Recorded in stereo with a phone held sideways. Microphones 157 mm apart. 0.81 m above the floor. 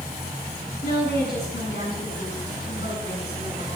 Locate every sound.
0.8 s a woman speaking: 85° left, 8.5 m